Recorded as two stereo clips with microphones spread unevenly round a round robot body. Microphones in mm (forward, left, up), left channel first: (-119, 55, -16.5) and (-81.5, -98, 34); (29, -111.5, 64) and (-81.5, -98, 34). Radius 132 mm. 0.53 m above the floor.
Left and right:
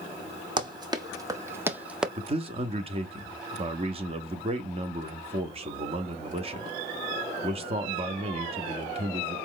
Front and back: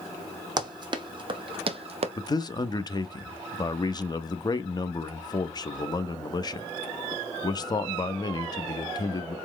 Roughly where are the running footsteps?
Behind right.